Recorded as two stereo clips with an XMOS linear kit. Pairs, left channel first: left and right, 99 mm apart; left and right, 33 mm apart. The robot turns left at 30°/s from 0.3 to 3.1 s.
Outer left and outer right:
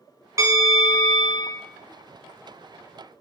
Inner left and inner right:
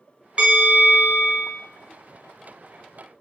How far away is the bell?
About 0.9 m.